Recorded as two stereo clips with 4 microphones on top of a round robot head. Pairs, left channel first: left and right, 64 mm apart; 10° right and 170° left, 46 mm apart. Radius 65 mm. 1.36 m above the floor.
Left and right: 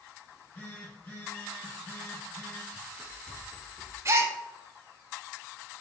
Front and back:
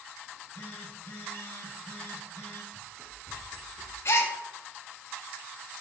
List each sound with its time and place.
0.3 s a phone buzzing: 30° left, 1.5 m
2.7 s running footsteps: 85° right, 1.4 m; by 4.0 s 120° left, 1.8 m
4.0 s a gasp: 40° right, 0.6 m